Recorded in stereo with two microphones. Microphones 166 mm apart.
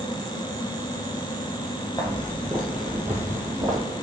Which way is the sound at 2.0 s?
20° left (ahead or behind).